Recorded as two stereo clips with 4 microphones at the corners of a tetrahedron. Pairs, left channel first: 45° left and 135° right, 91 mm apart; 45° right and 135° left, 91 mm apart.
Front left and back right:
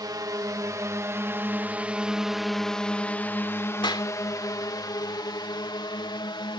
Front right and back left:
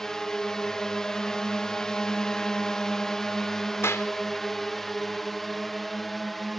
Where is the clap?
15° left.